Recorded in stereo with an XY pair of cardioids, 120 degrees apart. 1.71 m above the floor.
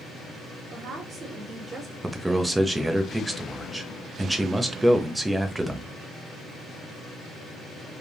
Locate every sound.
0.7 s a woman speaking: 55° right, 1.4 m; by 1.9 s 30° right, 1.3 m
2.0 s a man speaking: 10° right, 0.6 m